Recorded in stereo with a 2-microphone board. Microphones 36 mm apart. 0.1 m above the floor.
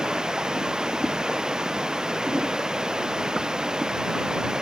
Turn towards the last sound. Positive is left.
turn(degrees=-20)  # may be behind; listen again after turning